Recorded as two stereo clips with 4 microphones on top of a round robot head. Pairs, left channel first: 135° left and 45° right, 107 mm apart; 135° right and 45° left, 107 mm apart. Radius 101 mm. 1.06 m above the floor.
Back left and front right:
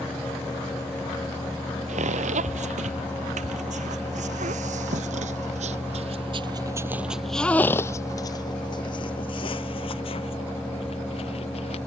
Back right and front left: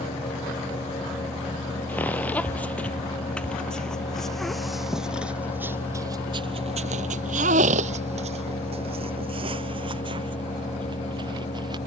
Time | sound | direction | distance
1.9 | footsteps | 55° right | ?